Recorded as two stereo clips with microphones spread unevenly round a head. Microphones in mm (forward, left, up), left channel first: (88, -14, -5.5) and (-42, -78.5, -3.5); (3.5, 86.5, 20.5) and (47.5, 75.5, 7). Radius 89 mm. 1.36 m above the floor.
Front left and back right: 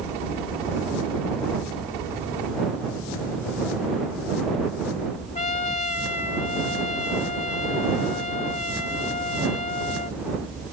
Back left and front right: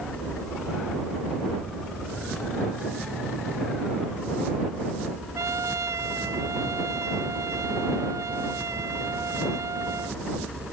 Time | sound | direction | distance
5.3 | a trumpet | 5° right | ?